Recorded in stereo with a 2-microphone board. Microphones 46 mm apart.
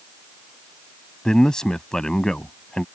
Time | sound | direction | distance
1.2 | a man speaking | 15° left (ahead or behind) | ?